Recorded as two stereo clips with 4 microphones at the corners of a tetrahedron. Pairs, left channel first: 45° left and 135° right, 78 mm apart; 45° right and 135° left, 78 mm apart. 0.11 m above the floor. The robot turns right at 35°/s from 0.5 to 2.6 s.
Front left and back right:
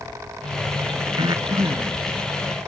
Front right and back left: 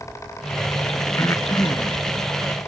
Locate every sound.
1.2 s breathing: 105° right; by 2.0 s 75° right